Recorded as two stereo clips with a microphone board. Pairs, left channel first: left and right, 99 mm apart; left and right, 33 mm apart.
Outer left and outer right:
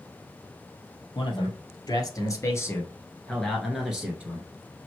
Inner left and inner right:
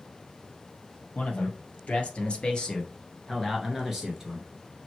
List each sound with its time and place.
1.1 s a man speaking: 50° left (ahead or behind), 2.0 m; by 4.5 s 20° right (ahead or behind), 1.4 m